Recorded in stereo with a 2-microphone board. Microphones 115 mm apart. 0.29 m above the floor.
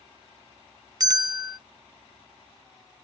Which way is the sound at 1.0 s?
35° right (ahead or behind).